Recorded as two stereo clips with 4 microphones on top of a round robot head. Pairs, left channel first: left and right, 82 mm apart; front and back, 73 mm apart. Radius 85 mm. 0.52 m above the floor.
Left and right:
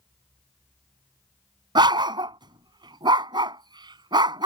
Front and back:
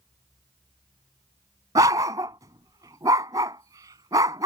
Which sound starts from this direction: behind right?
A dog barking, at 1.8 s.